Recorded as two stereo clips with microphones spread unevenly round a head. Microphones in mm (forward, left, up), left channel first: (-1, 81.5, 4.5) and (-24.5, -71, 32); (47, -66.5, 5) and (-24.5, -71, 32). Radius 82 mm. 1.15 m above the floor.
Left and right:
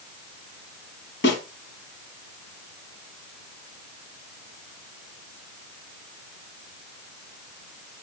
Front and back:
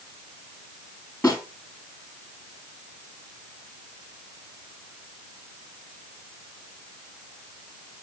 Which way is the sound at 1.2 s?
90° left.